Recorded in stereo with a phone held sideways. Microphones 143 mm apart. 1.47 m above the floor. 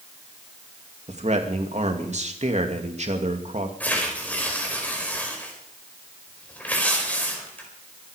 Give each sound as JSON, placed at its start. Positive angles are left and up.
{"t": 1.1, "sound": "a man speaking", "side_deg": -55, "distance_m": 2.5}
{"t": 3.8, "sound": "tearing paper", "side_deg": 10, "distance_m": 4.5}